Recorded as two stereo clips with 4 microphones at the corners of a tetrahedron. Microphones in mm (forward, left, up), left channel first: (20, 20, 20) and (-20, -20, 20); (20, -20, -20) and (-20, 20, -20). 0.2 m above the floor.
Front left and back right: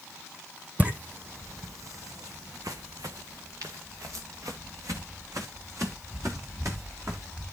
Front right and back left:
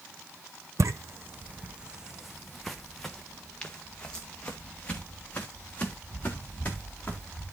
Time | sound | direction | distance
0.8 | footsteps | 160° left | 0.7 m